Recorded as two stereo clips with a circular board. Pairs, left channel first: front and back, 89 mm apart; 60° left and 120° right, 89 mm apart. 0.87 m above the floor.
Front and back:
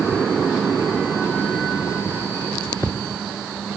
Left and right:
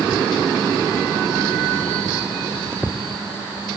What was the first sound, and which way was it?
Only background noise.